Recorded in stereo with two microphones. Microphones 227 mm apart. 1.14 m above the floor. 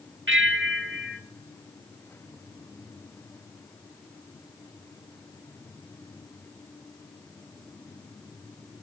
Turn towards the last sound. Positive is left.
turn(degrees=-60)  # may be behind; listen again after turning